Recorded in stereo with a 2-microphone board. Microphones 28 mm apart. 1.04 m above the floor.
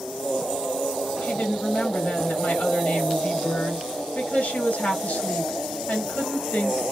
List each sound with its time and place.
1.2 s a woman speaking: 80° left, 1.6 m